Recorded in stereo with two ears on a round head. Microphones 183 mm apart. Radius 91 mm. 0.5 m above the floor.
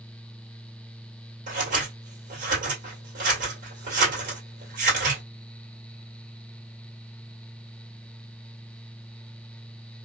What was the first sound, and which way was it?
Scissors, 40° right (ahead or behind).